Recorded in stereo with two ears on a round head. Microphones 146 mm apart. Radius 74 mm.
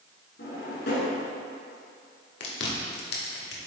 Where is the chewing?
70° left (ahead or behind), 1.5 m.